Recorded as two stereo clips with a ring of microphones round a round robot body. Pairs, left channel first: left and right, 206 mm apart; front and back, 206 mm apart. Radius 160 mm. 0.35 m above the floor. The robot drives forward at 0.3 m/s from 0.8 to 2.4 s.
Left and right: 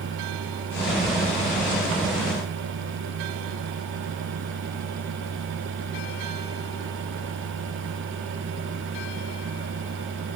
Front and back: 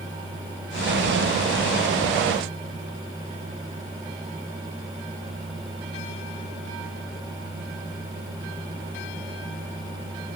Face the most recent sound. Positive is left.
No sound to turn to.